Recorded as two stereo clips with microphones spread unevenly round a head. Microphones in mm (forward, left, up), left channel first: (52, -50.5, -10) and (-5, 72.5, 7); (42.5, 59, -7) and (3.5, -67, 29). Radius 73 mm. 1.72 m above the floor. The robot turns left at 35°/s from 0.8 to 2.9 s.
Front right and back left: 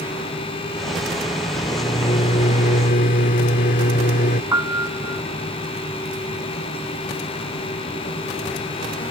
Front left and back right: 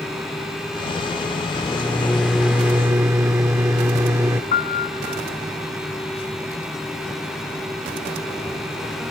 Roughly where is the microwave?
Ahead.